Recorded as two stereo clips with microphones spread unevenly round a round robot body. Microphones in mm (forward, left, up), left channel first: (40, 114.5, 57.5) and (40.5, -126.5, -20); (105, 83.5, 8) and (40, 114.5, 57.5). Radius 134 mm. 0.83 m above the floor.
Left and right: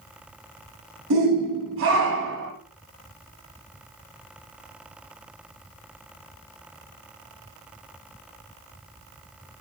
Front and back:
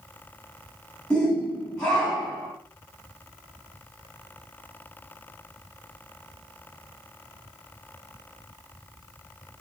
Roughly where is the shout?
Right.